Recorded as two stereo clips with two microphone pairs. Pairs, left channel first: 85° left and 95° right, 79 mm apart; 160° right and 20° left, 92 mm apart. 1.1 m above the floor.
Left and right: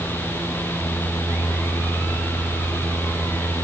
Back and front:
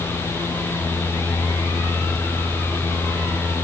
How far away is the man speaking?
No man speaking in this recording.